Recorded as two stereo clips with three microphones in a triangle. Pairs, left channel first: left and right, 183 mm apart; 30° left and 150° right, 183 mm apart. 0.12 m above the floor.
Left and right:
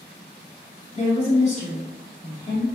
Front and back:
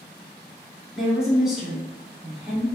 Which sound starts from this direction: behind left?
A woman speaking, at 0.9 s.